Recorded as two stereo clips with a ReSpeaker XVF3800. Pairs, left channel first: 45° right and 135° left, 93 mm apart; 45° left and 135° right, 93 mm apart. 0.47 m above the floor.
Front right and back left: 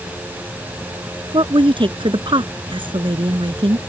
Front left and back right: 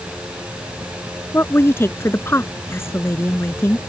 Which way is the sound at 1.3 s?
110° left.